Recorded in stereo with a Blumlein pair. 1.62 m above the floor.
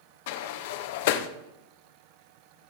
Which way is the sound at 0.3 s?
50° left.